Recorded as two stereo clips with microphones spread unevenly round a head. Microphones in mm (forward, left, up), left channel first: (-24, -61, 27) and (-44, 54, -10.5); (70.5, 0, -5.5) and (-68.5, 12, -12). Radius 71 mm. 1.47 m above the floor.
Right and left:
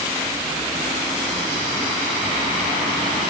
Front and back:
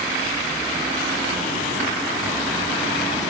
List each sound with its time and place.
Only background noise.